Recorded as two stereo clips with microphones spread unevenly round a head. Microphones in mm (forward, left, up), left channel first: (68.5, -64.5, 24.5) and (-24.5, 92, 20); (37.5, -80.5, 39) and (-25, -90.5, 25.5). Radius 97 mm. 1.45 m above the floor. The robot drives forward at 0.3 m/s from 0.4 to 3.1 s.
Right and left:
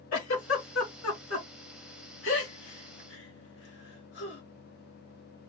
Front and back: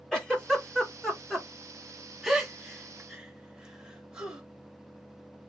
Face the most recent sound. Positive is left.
turn(degrees=-90)